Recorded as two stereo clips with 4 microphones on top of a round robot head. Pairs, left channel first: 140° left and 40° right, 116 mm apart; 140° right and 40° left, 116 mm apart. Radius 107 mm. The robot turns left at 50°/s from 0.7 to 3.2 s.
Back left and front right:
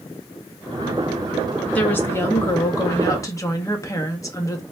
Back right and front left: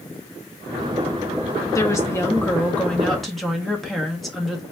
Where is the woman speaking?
155° right, 0.8 m; by 4.6 s 130° left, 0.8 m.